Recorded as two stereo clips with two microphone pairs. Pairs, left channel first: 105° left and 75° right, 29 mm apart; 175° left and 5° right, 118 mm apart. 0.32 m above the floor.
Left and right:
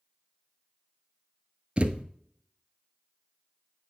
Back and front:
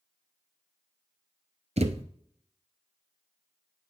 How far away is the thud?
About 0.8 m.